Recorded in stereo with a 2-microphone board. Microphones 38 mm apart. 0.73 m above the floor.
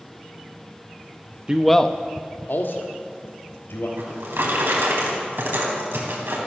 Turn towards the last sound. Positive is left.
turn(degrees=-80)